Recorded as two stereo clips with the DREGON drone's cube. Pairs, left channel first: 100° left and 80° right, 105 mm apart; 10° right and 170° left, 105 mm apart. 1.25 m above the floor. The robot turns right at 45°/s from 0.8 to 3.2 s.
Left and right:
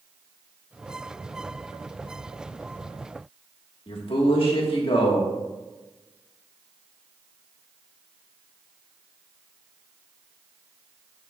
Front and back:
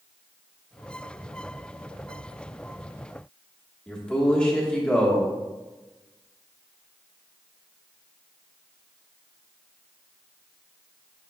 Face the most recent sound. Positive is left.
turn(degrees=70)